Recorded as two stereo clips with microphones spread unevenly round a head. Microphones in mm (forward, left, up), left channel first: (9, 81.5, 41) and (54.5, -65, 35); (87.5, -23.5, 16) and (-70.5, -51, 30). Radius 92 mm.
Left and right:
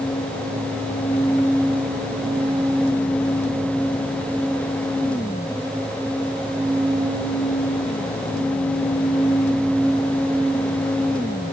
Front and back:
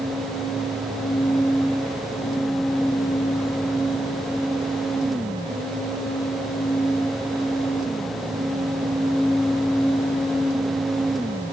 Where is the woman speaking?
I don't hear a woman speaking.